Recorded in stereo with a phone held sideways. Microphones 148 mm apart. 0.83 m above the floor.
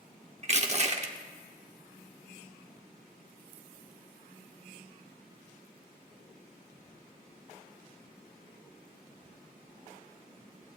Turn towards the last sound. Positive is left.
turn(degrees=-45)  # may be behind; listen again after turning